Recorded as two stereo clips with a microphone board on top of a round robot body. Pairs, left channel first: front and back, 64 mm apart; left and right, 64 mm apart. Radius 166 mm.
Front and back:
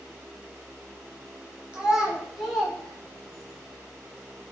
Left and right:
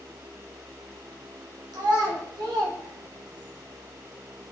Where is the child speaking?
105° right, 1.5 m; by 3.5 s 75° right, 2 m.